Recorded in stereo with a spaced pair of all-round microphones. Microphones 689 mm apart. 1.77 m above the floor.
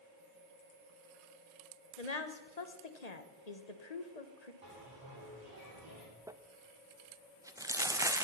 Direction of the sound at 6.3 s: 5° right (ahead or behind).